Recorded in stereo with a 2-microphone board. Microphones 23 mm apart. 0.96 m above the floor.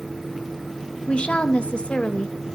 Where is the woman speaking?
55° left (ahead or behind), 0.7 m.